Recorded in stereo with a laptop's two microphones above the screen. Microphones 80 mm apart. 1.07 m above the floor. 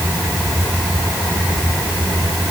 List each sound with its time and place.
Only background noise.